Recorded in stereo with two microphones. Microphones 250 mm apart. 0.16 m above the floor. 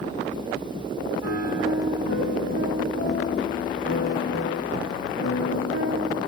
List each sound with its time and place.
1.2 s a piano: 75° left (ahead or behind), 6 m